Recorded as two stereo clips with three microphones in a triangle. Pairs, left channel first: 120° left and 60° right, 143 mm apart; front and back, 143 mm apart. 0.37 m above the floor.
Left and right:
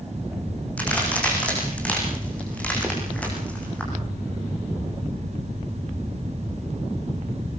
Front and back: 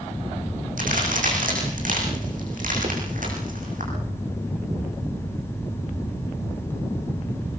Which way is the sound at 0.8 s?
160° right.